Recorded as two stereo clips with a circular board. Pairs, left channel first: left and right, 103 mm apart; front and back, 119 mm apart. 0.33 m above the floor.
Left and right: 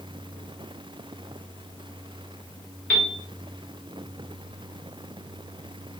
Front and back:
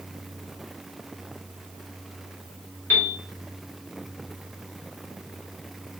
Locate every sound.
2.9 s a piano: 35° left, 0.9 m